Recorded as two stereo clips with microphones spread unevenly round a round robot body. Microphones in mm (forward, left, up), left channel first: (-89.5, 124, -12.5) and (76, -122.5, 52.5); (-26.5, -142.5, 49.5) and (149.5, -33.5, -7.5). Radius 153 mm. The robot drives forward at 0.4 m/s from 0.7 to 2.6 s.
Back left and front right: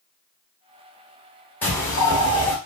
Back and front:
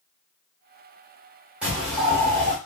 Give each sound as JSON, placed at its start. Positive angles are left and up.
{"t": 1.6, "sound": "a bird", "azimuth_deg": 75, "distance_m": 1.2}